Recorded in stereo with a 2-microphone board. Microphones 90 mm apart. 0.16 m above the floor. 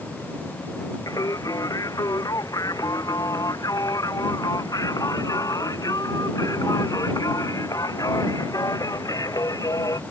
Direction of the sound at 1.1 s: 40° left (ahead or behind).